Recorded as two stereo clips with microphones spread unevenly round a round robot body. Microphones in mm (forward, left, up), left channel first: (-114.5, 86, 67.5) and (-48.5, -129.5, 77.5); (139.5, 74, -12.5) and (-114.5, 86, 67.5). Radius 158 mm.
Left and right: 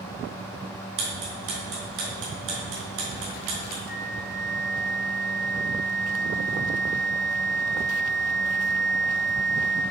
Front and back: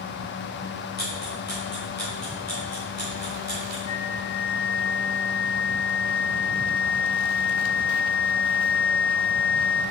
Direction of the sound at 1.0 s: 90° right.